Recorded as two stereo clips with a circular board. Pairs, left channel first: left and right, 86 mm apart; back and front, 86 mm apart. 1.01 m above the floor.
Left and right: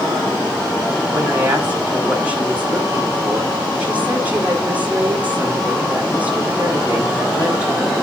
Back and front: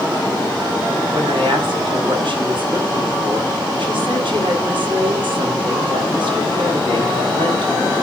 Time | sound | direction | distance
1.1 | a woman speaking | 15° right | 6.5 m